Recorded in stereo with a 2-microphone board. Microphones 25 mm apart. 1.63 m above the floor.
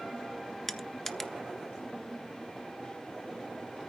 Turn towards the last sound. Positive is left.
turn(degrees=10)  # may be behind; listen again after turning